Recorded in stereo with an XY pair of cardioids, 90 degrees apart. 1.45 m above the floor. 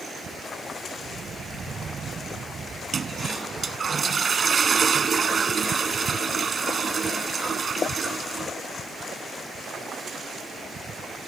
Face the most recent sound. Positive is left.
turn(degrees=-45)